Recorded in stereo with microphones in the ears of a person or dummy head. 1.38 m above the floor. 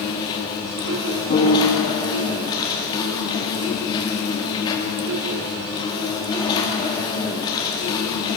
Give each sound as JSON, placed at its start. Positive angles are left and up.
{"t": 0.0, "sound": "an insect", "side_deg": 25, "distance_m": 2.0}
{"t": 1.3, "sound": "a piano", "side_deg": 45, "distance_m": 1.7}